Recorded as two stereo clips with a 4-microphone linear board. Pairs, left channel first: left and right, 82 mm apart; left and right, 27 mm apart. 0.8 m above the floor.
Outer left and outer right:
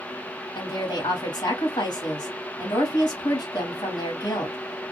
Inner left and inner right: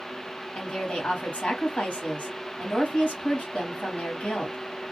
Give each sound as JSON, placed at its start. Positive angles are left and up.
{"t": 0.6, "sound": "a woman speaking", "side_deg": 65, "distance_m": 1.7}